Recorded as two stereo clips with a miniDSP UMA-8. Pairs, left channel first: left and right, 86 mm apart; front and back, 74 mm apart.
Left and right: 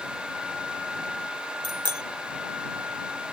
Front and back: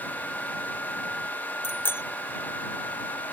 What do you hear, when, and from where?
1.6 s a bicycle bell: 60° right